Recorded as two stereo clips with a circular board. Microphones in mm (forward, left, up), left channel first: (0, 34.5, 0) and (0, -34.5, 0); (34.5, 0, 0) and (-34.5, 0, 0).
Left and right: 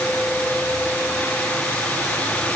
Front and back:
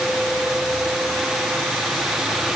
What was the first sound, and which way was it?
Only background noise.